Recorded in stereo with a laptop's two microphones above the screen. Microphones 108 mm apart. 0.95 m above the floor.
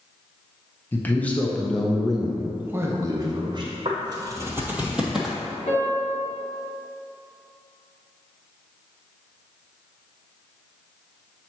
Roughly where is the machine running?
No machine running in this recording.